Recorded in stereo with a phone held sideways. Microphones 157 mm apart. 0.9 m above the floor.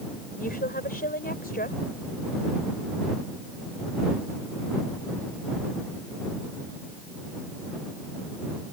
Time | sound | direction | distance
0.4 | a woman speaking | 65° left (ahead or behind) | ?